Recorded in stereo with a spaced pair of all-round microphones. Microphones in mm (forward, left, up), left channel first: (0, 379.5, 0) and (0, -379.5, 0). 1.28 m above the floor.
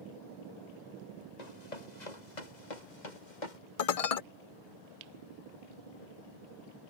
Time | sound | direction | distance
1.4 | running footsteps | 60° left (ahead or behind) | ?
3.8 | dishes clattering | 55° left (ahead or behind) | ?